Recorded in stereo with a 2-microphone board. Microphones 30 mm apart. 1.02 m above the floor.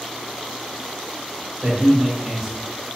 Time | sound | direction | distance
1.6 | a man speaking | 45° right (ahead or behind) | 1.6 m